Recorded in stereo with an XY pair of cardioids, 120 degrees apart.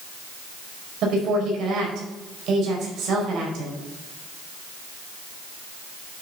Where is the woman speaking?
65° right, 5.5 m.